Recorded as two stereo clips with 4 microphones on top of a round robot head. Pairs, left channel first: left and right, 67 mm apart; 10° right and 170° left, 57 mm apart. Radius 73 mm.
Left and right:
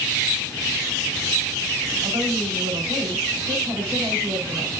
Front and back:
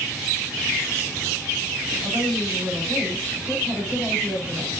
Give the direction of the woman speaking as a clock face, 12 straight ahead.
4 o'clock.